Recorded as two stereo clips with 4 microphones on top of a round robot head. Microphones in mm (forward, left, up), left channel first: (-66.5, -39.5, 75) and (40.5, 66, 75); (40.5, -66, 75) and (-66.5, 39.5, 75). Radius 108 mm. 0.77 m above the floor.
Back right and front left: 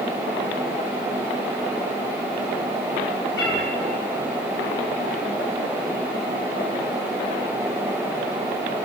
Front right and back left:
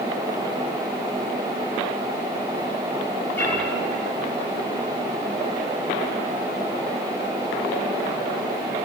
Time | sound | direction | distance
3.4 | a cat meowing | 125° right | 8 m